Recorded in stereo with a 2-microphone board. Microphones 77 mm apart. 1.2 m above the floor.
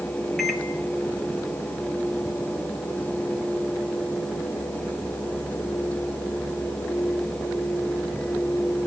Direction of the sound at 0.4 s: Centre (ahead or behind).